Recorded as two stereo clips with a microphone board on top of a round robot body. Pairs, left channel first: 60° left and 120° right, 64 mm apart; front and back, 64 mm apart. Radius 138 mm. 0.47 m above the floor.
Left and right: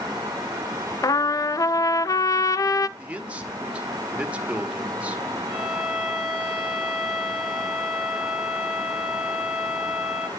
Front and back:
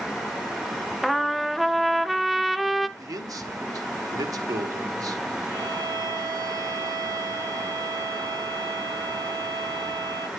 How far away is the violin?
About 3.5 m.